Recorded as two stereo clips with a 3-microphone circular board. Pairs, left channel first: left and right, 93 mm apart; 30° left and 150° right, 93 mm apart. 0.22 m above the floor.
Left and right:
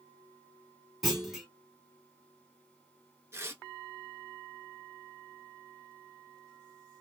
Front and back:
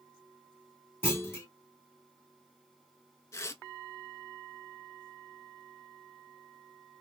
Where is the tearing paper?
30° right, 0.6 m.